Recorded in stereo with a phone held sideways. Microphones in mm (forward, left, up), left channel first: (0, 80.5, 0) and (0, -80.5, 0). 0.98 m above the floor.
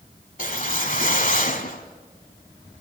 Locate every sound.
0.4 s a whoosh: 60° left (ahead or behind), 1.4 m